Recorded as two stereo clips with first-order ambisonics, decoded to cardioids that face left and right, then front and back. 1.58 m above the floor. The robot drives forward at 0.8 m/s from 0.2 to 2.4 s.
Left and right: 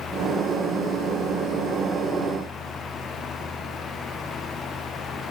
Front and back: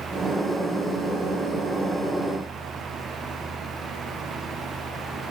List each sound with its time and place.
Only background noise.